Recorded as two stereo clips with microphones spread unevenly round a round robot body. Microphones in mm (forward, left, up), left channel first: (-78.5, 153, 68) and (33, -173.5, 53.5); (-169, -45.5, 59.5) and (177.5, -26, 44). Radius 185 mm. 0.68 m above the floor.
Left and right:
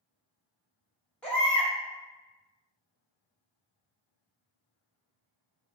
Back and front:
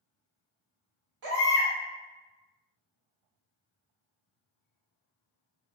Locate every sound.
1.2 s a baby crying: 20° left, 1.3 m